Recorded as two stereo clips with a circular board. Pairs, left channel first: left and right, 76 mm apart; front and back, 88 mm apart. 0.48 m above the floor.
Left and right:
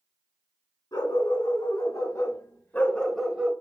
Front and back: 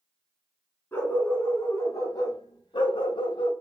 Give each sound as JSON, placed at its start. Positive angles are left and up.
{"t": 0.9, "sound": "a dog barking", "azimuth_deg": 65, "distance_m": 2.0}